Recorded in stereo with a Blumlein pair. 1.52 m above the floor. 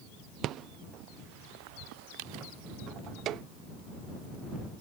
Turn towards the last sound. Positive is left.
turn(degrees=-35)